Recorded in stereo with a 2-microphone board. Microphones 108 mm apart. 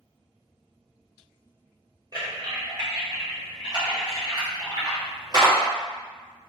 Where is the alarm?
No alarm in this recording.